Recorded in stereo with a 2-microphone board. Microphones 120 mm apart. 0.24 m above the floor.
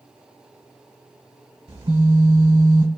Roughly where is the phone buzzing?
Right.